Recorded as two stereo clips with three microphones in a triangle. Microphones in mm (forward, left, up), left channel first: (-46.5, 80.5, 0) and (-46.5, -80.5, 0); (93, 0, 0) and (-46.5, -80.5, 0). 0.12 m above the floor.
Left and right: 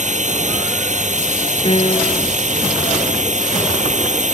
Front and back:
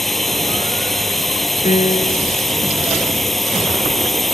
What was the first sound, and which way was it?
A drone, 60° right.